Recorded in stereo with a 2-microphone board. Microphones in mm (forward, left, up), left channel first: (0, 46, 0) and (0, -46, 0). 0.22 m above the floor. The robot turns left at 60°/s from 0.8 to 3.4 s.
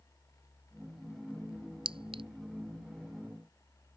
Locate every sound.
1.9 s a clink: 75° right (ahead or behind); by 2.2 s 70° right (ahead or behind)